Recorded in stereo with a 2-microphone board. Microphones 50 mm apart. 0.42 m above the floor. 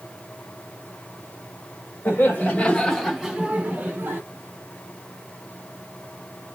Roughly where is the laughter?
Left.